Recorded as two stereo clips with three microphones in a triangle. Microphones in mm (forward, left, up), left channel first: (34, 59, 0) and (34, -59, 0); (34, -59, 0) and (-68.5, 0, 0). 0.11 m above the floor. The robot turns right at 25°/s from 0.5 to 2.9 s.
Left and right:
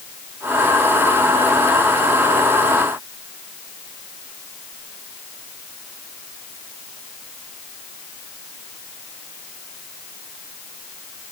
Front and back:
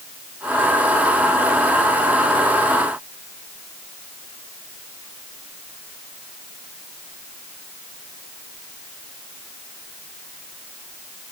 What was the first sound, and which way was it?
Only background noise.